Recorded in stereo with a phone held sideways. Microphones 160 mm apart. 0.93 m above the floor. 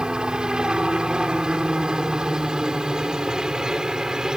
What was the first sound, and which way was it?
A helicopter, 5° right (ahead or behind).